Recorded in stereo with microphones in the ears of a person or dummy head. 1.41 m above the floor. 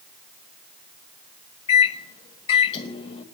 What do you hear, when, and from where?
1.7 s a microwave: 35° left (ahead or behind), 1.6 m